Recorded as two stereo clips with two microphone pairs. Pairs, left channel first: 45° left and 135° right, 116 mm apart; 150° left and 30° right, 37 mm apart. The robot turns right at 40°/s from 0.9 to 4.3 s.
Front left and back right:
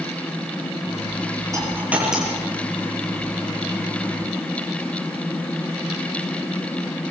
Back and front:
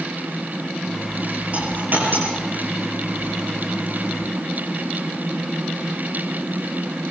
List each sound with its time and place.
1.5 s a dropped coin: 75° right, 8 m; by 2.4 s 40° right, 8 m